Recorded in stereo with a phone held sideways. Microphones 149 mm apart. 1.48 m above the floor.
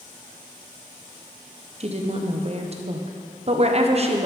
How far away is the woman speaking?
About 0.8 m.